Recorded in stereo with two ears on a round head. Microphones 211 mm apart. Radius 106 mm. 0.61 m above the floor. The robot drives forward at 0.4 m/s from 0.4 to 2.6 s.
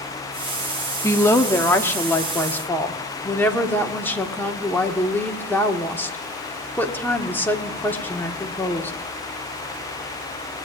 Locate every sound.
1.0 s a woman speaking: 15° left (ahead or behind), 1.0 m; by 8.9 s 10° left (ahead or behind), 1.4 m